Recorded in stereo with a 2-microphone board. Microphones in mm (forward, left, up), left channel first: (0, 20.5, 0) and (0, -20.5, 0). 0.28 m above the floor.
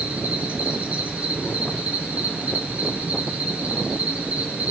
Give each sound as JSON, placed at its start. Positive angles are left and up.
{"t": 0.0, "sound": "an insect", "side_deg": -35, "distance_m": 4.5}